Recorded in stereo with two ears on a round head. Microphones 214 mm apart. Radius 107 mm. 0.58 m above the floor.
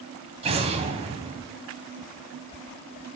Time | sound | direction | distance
0.4 | an explosion | 25° right (ahead or behind) | 1.8 m